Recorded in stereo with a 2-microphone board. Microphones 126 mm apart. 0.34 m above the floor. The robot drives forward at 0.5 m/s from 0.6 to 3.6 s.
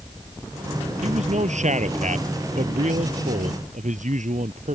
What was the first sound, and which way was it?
A man speaking, 65° right (ahead or behind).